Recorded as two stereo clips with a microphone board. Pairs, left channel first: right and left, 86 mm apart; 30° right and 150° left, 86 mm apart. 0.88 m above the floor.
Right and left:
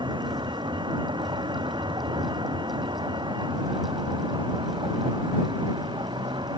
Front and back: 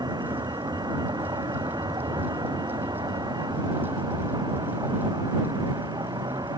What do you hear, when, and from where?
0.0 s a vehicle: 115° left